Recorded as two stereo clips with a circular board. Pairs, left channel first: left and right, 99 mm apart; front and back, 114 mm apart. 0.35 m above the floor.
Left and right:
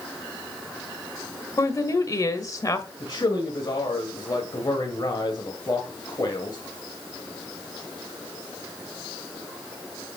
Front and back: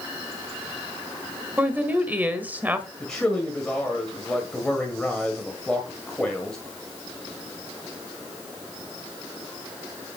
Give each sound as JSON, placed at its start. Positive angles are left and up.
{"t": 1.6, "sound": "a woman speaking", "azimuth_deg": 115, "distance_m": 1.4}
{"t": 3.0, "sound": "a man speaking", "azimuth_deg": 80, "distance_m": 1.9}